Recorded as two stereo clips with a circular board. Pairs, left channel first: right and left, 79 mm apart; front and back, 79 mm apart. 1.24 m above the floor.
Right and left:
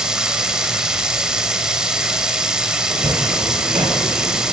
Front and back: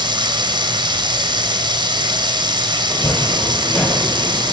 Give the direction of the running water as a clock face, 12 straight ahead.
6 o'clock.